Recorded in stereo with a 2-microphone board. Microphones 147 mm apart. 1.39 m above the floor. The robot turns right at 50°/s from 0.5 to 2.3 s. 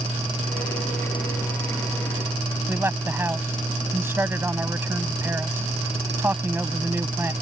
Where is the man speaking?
15° right (ahead or behind).